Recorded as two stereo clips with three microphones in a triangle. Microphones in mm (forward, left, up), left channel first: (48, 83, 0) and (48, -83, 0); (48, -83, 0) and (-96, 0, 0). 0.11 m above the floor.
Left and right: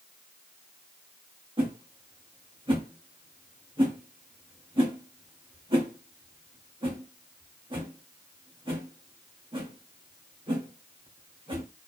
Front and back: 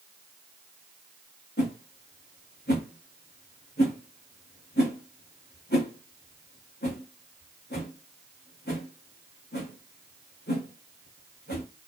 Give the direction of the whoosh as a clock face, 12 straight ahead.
1 o'clock.